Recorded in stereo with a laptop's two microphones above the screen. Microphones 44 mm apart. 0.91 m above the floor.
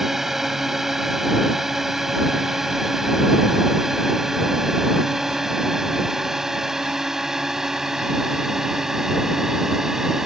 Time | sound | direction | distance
0.0 | a drone | 5° right (ahead or behind) | ?